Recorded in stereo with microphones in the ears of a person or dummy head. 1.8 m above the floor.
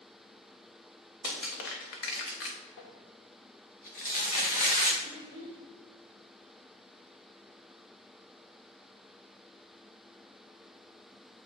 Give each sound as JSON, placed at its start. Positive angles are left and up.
{"t": 1.2, "sound": "crushing", "side_deg": 65, "distance_m": 1.3}
{"t": 2.8, "sound": "crumpling", "side_deg": 50, "distance_m": 1.3}
{"t": 5.0, "sound": "a child speaking", "side_deg": 40, "distance_m": 2.5}